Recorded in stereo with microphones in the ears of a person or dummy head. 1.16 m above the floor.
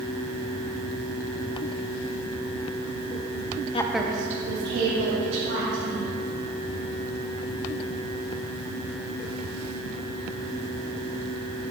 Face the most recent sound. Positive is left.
turn(degrees=-70)  # may be behind; listen again after turning